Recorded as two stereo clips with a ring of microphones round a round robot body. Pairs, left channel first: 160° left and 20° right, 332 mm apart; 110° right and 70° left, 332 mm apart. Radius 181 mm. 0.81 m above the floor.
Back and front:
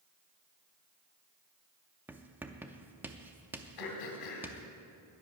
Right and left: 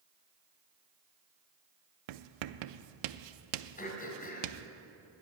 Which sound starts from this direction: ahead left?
Writing, at 2.1 s.